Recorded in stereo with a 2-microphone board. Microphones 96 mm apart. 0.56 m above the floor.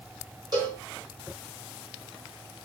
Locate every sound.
0.5 s a cowbell: 40° right (ahead or behind), 1.6 m